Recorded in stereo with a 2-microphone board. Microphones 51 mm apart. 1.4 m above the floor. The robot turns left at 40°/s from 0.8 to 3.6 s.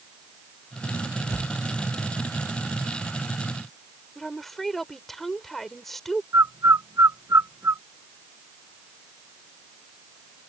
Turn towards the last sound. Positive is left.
turn(degrees=-80)